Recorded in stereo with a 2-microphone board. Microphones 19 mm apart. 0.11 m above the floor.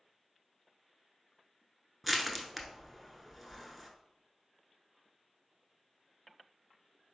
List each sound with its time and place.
2.0 s crushing: 5° right (ahead or behind), 0.8 m